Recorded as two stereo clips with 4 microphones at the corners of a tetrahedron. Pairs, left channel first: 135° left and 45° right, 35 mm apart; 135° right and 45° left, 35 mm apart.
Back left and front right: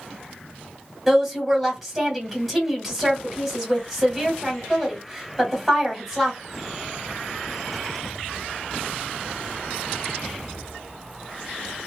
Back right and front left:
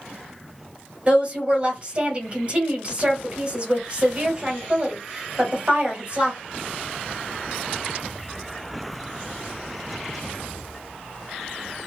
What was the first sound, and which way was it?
A woman speaking, 40° left.